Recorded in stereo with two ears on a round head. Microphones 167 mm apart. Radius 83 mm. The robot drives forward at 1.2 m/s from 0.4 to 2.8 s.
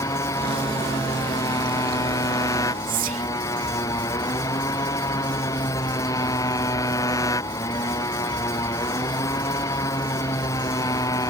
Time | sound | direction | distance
0.0 | a motorcycle | 15° left (ahead or behind) | ?
2.9 | whispering | 45° right (ahead or behind) | ?